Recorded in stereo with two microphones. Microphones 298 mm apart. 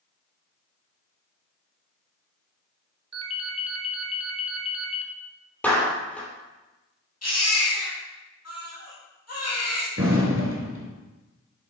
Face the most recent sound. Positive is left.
turn(degrees=-45)  # may be behind; listen again after turning